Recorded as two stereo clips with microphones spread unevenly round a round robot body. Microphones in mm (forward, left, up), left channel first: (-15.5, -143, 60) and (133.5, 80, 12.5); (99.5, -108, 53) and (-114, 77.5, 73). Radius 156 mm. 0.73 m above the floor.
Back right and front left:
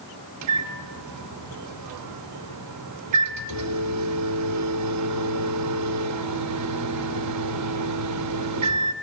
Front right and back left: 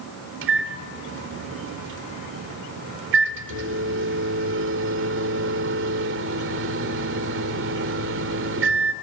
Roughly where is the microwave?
Left.